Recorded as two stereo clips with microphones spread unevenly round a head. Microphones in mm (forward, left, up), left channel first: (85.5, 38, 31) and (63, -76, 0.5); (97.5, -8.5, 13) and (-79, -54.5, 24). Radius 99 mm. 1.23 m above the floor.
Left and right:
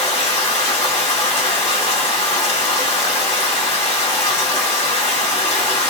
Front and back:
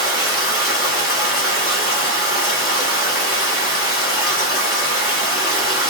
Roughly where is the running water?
Ahead left.